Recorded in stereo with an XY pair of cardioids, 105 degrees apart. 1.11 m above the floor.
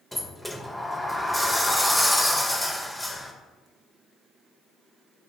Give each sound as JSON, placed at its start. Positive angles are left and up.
{"t": 0.1, "sound": "a sliding door", "azimuth_deg": 5, "distance_m": 0.5}